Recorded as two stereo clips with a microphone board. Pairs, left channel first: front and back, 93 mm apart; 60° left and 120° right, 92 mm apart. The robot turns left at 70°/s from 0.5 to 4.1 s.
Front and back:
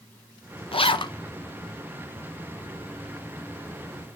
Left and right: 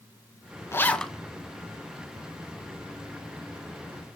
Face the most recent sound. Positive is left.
turn(degrees=120)